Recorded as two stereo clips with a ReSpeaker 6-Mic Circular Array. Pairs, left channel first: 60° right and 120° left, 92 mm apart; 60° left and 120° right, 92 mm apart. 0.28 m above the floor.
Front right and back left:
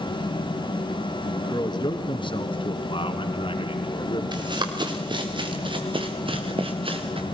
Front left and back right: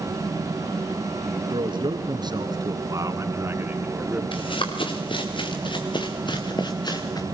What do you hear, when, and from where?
1.5 s a man speaking: 100° right, 3 m; by 4.2 s 45° right, 2.5 m
4.3 s running footsteps: 80° left, 4 m; by 7.2 s 105° left, 2.5 m